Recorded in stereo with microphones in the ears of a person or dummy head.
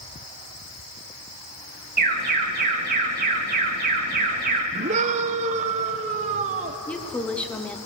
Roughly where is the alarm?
Right.